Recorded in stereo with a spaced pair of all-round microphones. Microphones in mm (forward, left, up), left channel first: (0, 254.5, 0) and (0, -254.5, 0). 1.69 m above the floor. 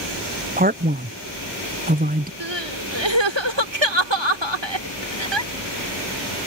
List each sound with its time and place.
0.6 s a man speaking: 15° right (ahead or behind)
2.4 s crying: 55° right (ahead or behind)